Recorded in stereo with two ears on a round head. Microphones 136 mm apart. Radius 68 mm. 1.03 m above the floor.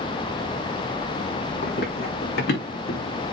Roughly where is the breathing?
No breathing in this recording.